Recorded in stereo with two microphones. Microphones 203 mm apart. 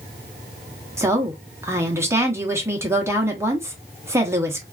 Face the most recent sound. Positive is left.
turn(degrees=-15)  # may be behind; listen again after turning